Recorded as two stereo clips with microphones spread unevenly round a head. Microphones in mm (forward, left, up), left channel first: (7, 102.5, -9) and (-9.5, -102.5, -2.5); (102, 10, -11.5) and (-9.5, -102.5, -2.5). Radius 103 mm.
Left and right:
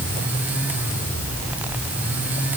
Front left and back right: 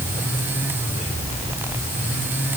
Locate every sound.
Only background noise.